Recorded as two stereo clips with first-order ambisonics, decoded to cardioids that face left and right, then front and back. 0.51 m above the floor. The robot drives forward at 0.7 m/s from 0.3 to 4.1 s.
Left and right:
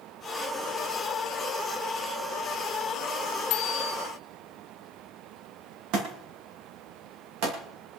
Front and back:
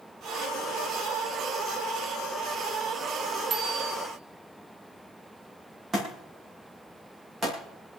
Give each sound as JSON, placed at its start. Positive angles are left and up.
{"t": 3.5, "sound": "a bicycle bell", "azimuth_deg": 115, "distance_m": 2.5}
{"t": 5.9, "sound": "a thud", "azimuth_deg": -110, "distance_m": 7.0}